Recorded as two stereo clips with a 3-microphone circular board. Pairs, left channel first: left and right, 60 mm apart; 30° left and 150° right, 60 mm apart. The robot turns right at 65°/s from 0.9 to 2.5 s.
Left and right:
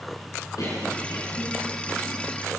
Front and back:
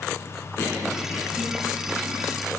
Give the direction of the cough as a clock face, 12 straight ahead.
10 o'clock.